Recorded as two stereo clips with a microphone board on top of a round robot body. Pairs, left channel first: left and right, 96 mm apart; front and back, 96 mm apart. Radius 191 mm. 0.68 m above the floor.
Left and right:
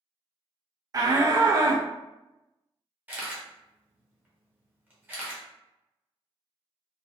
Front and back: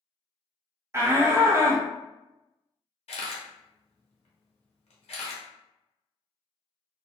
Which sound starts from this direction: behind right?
A shout, at 0.9 s.